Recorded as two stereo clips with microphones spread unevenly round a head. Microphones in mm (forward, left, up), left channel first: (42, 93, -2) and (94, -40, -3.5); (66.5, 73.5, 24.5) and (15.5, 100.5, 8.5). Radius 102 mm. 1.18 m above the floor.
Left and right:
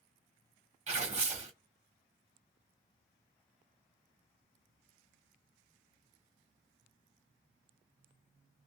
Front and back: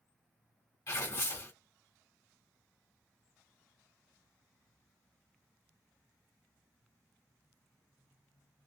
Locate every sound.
0.9 s tearing paper: 40° right, 1.1 m